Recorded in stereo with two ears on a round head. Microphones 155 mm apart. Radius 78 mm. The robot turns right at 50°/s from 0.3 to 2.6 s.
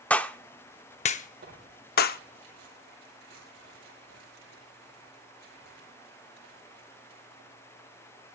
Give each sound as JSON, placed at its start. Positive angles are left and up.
{"t": 0.1, "sound": "a clap", "side_deg": 10, "distance_m": 0.6}
{"t": 1.4, "sound": "tearing paper", "side_deg": -50, "distance_m": 9.0}